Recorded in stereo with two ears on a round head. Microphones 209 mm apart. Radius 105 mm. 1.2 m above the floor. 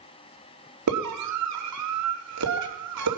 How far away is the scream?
About 3 m.